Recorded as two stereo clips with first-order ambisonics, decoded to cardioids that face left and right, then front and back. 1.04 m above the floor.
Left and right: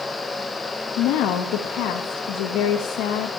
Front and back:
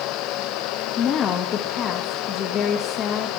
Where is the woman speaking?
55° left, 0.9 m.